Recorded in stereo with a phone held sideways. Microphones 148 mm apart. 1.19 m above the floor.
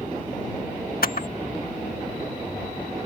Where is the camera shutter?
80° left.